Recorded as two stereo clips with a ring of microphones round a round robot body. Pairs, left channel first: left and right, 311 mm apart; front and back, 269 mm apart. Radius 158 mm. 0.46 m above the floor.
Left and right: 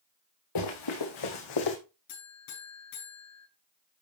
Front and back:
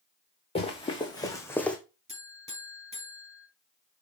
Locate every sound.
0.6 s running footsteps: 70° left, 3.5 m; by 1.8 s 85° left, 2 m
2.1 s a buzzer: 115° left, 5.5 m